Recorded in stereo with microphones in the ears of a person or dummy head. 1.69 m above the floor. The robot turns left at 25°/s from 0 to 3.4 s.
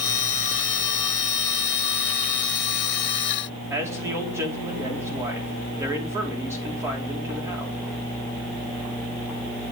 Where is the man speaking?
15° right (ahead or behind), 4 m.